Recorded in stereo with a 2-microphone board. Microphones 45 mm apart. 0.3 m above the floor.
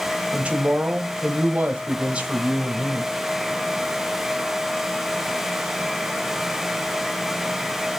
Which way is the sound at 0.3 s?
25° right (ahead or behind).